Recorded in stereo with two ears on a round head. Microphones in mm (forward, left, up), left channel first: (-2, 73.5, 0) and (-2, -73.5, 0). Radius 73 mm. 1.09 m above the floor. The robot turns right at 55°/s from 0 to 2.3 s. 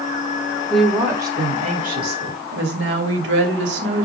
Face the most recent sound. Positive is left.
turn(degrees=-100)